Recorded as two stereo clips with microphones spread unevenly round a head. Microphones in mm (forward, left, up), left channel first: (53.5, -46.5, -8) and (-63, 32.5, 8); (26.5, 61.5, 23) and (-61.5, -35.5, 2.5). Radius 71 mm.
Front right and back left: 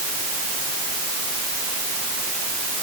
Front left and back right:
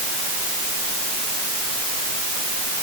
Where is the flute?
I don't hear a flute.